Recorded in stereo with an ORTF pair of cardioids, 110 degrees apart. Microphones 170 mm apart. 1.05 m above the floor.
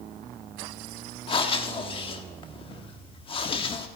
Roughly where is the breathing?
Ahead left.